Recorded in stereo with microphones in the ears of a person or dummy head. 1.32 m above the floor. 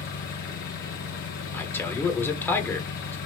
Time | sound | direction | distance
0.0 | an engine running | 50° left (ahead or behind) | 1.1 m
1.5 | a man speaking | 15° left (ahead or behind) | 0.9 m